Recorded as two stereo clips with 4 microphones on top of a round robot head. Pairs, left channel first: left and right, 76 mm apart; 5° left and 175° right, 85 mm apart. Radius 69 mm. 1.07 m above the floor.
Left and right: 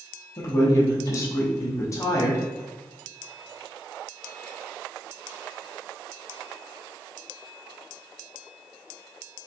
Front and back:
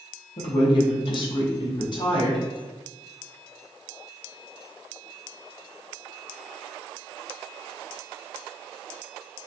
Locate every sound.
0.4 s a woman speaking: 35° left, 0.7 m